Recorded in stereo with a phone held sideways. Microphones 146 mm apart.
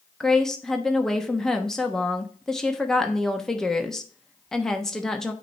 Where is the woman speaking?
5° left (ahead or behind), 1.0 m.